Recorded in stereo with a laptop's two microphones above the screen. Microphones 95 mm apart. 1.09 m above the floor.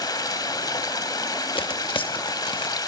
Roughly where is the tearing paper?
Left.